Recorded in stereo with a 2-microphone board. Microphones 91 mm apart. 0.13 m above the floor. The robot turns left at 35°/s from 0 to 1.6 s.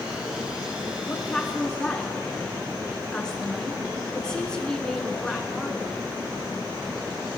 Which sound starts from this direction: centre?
A woman speaking, at 1.1 s.